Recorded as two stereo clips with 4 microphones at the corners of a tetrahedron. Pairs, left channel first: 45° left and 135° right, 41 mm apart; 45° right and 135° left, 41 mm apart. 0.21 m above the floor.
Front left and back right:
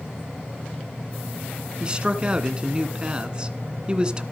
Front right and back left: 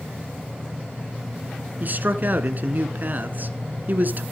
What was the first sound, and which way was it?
A man speaking, 165° left.